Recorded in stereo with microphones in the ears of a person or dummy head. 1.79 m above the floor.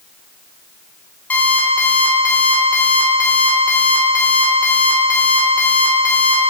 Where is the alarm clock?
10° left (ahead or behind), 3 m.